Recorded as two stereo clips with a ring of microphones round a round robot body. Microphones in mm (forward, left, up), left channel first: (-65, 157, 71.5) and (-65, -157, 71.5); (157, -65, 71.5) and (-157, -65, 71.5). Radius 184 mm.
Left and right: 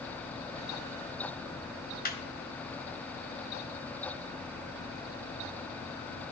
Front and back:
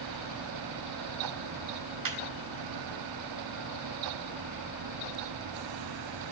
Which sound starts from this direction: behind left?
Laughter, at 2.0 s.